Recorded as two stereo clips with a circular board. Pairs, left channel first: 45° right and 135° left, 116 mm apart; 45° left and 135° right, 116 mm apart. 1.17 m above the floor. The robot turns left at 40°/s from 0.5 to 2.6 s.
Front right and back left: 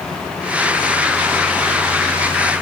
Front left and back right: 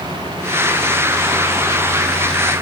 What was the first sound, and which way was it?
Only background noise.